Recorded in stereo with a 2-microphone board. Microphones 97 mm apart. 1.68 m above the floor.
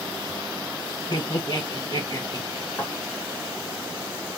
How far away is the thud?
About 2 m.